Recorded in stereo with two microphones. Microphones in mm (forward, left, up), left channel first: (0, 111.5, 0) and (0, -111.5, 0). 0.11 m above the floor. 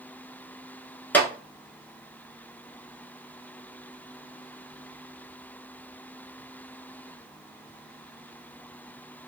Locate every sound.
1.1 s a clap: 10° left (ahead or behind), 0.9 m